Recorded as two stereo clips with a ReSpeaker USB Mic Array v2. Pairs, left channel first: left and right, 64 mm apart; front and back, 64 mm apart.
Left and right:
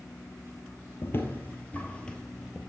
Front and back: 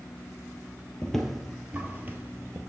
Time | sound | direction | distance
1.0 | footsteps | 75° left | 1.0 m